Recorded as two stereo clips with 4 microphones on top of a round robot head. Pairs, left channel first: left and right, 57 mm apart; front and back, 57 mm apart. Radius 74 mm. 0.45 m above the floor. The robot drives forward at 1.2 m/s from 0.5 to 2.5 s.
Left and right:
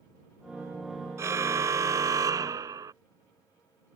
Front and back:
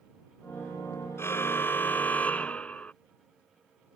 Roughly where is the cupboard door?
No cupboard door in this recording.